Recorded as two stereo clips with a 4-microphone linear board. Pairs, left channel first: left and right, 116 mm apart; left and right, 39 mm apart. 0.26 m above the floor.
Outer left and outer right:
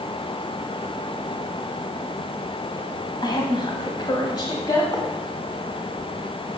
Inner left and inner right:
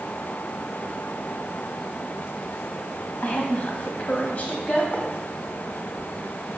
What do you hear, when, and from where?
3.2 s a woman speaking: 40° left (ahead or behind), 1.3 m; by 4.8 s 35° left (ahead or behind), 1.2 m
4.9 s writing: 35° left (ahead or behind), 1.4 m